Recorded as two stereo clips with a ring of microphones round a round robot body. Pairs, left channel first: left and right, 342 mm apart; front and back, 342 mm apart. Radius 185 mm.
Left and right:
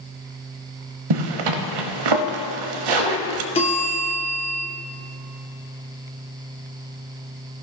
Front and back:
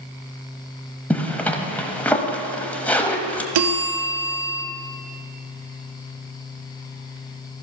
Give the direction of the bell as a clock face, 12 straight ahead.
7 o'clock.